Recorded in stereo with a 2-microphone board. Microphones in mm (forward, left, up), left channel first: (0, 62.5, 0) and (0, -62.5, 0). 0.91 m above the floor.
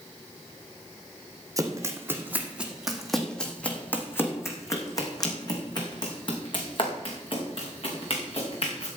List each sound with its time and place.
1.6 s running footsteps: 25° right (ahead or behind), 2 m; by 8.9 s 50° left (ahead or behind), 5 m